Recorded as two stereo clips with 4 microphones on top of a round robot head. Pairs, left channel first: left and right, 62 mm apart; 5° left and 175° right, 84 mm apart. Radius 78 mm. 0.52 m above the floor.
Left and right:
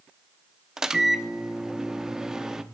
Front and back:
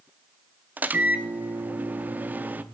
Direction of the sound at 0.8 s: 155° right.